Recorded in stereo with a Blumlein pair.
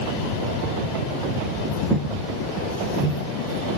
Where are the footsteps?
15° right, 6 m.